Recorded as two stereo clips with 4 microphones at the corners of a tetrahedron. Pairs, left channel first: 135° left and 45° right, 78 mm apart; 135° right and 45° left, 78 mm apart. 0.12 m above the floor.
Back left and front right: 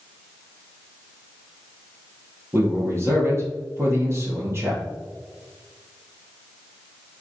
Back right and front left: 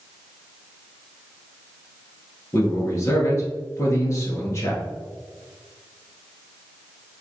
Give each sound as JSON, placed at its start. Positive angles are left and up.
{"t": 2.5, "sound": "a man speaking", "azimuth_deg": -90, "distance_m": 2.0}